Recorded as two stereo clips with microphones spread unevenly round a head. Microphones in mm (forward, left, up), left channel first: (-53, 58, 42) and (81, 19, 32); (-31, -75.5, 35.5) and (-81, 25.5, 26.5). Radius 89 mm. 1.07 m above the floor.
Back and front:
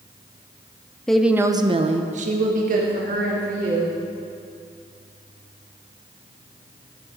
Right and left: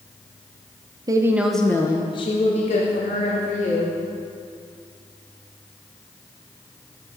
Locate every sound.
1.1 s a woman speaking: 75° left, 0.9 m; by 3.9 s 40° right, 2.5 m